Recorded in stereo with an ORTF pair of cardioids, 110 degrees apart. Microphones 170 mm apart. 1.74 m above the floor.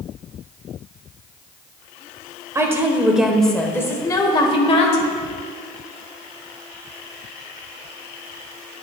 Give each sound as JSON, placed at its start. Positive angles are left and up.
{"t": 2.5, "sound": "a woman speaking", "azimuth_deg": -20, "distance_m": 1.3}